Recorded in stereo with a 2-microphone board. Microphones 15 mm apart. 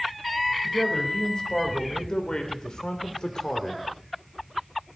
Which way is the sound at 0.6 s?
60° left (ahead or behind).